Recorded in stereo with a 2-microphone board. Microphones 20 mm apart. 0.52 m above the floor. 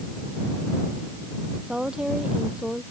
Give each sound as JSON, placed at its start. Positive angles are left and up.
{"t": 1.7, "sound": "a woman speaking", "side_deg": -45}